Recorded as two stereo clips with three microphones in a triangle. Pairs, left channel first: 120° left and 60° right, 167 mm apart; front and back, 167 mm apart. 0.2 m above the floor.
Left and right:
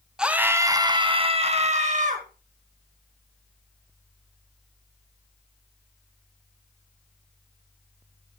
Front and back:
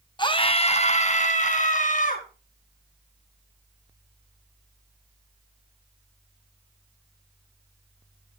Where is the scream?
20° left, 1.4 m; by 2.3 s 30° right, 2.5 m.